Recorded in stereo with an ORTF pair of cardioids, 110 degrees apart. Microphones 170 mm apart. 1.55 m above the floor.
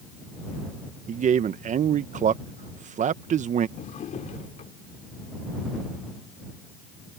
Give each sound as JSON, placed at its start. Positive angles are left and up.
{"t": 1.1, "sound": "a man speaking", "azimuth_deg": -45}
{"t": 3.8, "sound": "a drawer", "azimuth_deg": 50}